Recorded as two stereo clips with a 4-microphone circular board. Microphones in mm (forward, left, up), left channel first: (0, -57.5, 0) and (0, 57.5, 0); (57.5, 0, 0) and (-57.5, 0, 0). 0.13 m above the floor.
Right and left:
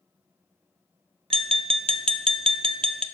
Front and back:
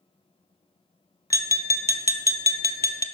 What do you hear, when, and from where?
1.3 s tapping: 60° left, 0.5 m